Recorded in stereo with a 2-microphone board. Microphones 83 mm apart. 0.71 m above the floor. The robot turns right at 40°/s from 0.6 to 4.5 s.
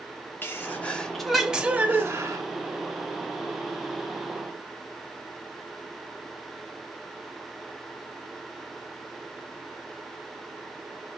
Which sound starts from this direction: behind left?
A sneeze, at 0.4 s.